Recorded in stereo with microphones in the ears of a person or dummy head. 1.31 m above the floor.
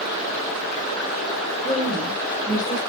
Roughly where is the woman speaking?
Left.